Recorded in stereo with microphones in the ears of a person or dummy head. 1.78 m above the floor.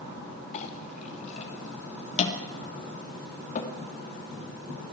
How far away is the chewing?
No chewing in this recording.